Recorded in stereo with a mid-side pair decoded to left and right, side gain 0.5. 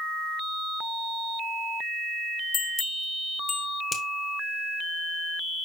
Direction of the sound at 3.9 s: 30° left.